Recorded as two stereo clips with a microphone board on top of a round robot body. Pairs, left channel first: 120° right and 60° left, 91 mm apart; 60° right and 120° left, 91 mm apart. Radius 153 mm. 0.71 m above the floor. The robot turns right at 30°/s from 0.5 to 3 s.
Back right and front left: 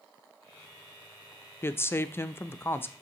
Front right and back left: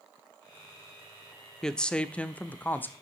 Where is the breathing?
No breathing in this recording.